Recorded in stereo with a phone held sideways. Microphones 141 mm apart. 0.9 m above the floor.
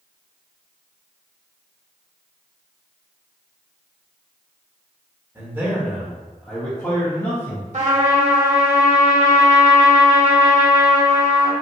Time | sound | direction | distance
5.3 | a man speaking | 20° right (ahead or behind) | 1.2 m
7.7 | a trumpet | 55° right (ahead or behind) | 1.1 m